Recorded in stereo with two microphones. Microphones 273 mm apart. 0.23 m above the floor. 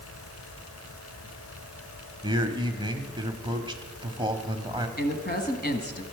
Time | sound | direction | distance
2.2 | a man speaking | 15° right (ahead or behind) | 1.1 m
5.0 | a woman speaking | 35° left (ahead or behind) | 1.4 m